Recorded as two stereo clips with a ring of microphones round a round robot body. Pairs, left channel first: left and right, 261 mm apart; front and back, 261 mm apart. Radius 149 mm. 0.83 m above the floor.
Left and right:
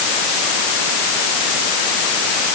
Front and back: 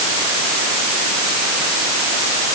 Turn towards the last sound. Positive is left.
No sound to turn to.